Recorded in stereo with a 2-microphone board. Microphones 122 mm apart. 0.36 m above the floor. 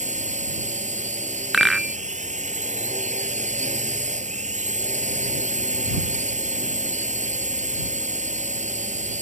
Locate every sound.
0.0 s a drone: 80° right
1.5 s a rattle: centre (ahead or behind)